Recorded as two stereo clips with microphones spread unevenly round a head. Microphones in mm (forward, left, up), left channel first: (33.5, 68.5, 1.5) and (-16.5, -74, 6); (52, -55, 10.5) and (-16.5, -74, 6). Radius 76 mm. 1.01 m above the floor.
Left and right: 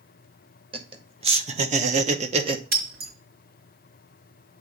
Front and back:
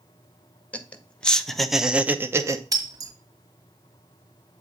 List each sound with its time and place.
0.7 s laughter: 55° right, 1.7 m; by 2.6 s 160° right, 0.9 m
2.7 s breaking glass: 135° right, 1.9 m